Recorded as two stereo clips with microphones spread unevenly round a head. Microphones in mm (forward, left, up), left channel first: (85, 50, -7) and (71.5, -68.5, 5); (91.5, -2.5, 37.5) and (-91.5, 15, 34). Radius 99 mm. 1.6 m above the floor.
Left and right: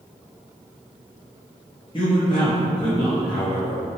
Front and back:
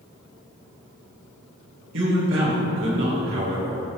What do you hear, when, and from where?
1.9 s a man speaking: 150° left, 3 m